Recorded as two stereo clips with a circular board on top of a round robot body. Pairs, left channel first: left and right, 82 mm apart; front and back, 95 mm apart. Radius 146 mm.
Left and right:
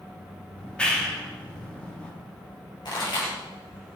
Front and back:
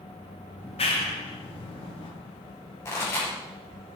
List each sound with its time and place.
0.6 s a clap: 10° left, 1.9 m
2.9 s a pop: 60° left, 6 m